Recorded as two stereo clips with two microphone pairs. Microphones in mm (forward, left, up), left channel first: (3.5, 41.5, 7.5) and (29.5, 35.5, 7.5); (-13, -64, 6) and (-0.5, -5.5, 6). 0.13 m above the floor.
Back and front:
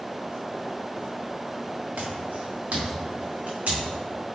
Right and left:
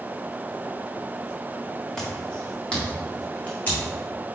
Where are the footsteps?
20° right, 2.5 m; by 3.9 s 35° right, 4 m.